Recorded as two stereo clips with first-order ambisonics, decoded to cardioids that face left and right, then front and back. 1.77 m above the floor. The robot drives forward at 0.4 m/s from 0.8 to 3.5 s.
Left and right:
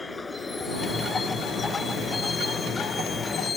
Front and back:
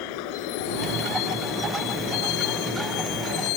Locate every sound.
0.0 s a vehicle: 10° left; by 3.6 s 15° left